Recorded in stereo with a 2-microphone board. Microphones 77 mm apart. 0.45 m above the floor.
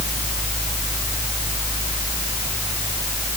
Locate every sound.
Only background noise.